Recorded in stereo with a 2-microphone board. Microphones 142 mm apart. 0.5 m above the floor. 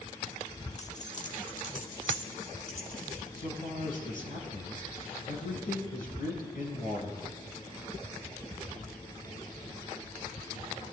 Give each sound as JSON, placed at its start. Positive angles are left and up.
{"t": 0.8, "sound": "keys jangling", "side_deg": 45, "distance_m": 0.8}
{"t": 3.4, "sound": "a man speaking", "side_deg": 70, "distance_m": 3.5}